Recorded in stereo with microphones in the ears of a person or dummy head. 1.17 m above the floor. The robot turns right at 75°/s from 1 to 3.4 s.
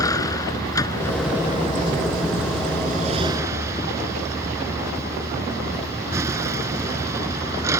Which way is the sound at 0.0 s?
165° left.